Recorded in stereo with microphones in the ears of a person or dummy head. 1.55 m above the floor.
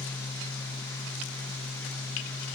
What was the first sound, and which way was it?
A fan, 15° left (ahead or behind).